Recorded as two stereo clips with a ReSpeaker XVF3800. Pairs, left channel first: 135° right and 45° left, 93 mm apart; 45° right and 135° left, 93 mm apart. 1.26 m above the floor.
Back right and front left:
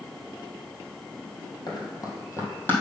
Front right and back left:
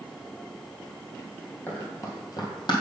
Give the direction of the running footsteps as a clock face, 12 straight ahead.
4 o'clock.